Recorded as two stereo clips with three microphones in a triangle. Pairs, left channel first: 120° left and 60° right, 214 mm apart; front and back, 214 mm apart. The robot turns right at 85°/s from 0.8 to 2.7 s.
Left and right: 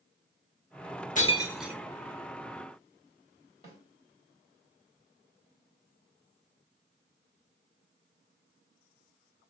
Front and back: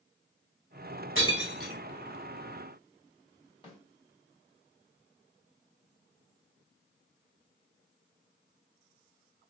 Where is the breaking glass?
170° left, 0.8 m; by 1.8 s 130° right, 0.8 m.